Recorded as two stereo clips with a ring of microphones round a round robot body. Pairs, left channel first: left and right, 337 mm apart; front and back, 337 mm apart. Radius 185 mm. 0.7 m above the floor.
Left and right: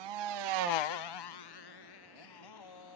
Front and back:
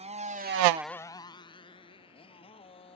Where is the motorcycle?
110° right; by 3.0 s 75° left.